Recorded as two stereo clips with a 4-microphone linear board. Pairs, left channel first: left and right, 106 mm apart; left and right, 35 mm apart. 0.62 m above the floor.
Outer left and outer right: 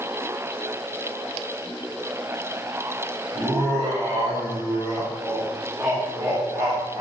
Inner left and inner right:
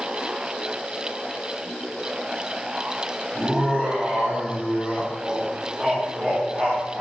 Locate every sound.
3.3 s laughter: 5° right (ahead or behind), 1.5 m